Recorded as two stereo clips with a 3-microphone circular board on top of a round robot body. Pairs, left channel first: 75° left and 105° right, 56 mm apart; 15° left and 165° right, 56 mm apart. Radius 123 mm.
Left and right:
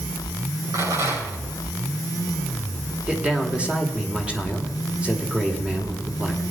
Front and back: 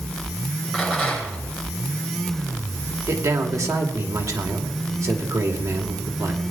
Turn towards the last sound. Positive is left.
turn(degrees=-175)